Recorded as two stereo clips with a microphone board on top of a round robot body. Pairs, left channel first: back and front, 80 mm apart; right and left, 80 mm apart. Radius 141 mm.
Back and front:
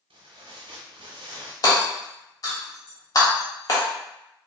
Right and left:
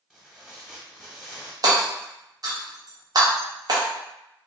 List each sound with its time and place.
0.1 s tearing paper: 5° left, 0.9 m
1.6 s hammering: 135° left, 1.0 m